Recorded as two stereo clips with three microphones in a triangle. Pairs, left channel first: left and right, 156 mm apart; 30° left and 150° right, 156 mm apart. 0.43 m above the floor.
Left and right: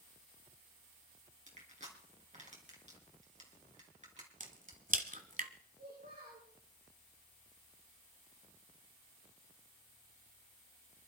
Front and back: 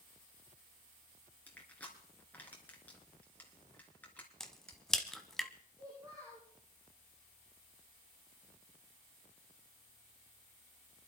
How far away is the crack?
About 1.2 m.